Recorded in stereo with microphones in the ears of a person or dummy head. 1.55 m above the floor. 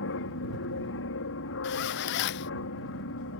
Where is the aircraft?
70° left (ahead or behind).